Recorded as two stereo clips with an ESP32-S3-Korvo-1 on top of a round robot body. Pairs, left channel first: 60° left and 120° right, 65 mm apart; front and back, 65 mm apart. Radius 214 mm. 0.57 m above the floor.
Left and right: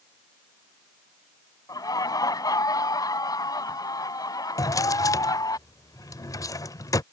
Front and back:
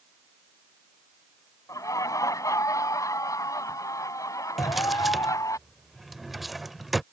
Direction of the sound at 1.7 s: 40° left.